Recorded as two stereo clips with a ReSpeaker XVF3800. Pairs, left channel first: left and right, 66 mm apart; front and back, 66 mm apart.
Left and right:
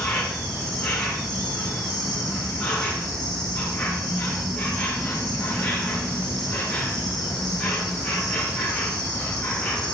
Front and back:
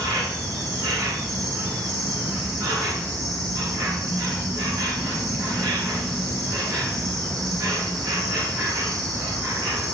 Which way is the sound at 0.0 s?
165° left.